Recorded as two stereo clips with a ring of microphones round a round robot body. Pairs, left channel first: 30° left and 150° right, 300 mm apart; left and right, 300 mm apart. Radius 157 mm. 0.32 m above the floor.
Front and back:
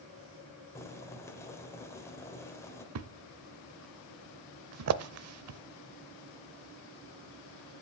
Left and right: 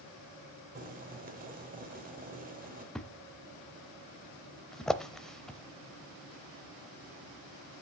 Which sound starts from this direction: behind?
A thud, at 3.0 s.